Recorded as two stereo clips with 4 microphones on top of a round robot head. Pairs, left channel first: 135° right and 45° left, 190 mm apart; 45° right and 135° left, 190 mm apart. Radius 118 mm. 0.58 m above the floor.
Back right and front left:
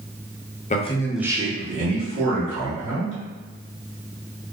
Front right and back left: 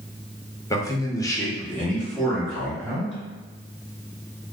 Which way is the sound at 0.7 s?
110° right.